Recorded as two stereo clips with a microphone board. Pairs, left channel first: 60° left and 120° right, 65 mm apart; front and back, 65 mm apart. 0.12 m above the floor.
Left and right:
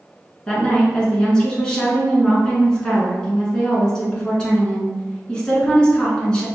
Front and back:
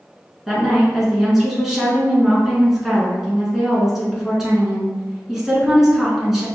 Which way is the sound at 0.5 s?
105° left.